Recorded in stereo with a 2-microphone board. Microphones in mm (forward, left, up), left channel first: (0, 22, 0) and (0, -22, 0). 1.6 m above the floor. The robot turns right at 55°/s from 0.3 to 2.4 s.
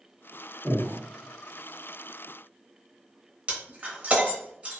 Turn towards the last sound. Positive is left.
turn(degrees=-25)  # may be behind; listen again after turning